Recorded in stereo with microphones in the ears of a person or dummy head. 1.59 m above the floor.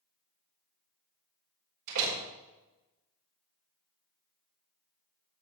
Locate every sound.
1.9 s a door slam: 70° right (ahead or behind), 4 m